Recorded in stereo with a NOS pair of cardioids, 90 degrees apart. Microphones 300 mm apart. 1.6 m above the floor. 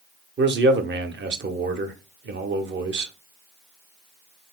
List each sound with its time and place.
0.4 s a man speaking: 35° right, 0.8 m